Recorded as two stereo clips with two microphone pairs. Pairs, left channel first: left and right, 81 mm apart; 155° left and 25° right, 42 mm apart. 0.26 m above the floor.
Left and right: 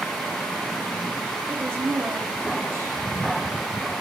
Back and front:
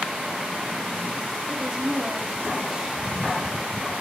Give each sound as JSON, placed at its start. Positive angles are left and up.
{"t": 1.5, "sound": "a woman speaking", "azimuth_deg": -80, "distance_m": 1.2}